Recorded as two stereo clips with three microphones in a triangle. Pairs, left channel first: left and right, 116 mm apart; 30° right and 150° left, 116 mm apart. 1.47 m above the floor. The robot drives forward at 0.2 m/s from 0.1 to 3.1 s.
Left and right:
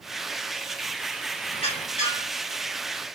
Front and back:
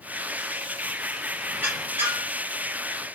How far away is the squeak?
About 2.5 m.